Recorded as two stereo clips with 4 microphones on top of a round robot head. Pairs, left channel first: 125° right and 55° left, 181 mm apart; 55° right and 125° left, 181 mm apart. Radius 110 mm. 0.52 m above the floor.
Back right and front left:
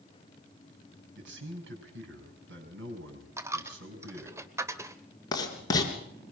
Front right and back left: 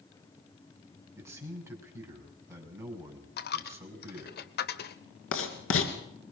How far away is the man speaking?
About 6 m.